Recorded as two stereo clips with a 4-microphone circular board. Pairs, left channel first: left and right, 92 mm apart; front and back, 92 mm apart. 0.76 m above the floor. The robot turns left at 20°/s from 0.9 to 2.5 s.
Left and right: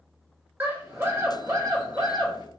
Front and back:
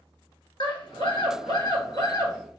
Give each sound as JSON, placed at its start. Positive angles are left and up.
{"t": 0.6, "sound": "a scream", "azimuth_deg": -20, "distance_m": 1.8}